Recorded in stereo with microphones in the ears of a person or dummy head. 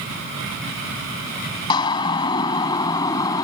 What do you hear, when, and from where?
1.7 s a siren: 25° left (ahead or behind); by 3.4 s 20° left (ahead or behind)